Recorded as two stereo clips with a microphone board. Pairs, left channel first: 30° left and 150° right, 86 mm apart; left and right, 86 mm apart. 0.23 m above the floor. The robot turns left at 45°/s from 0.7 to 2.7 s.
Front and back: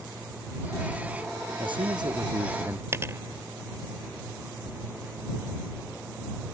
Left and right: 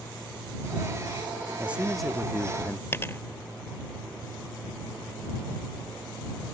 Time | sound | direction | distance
1.6 | a man speaking | 160° right | ?
2.9 | a dropped coin | 150° left | ?